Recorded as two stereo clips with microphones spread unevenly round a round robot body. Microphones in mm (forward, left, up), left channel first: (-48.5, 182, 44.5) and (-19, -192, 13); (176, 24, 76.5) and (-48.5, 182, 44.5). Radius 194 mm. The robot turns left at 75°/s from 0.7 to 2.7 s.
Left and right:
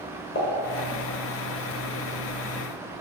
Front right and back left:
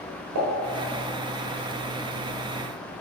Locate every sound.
0.3 s a pop: 155° left, 0.9 m